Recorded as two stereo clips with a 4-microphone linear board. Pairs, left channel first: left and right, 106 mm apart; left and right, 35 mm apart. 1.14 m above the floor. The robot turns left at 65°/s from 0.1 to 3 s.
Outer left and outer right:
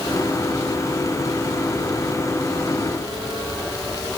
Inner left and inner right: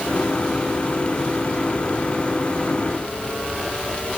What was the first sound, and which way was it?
Only background noise.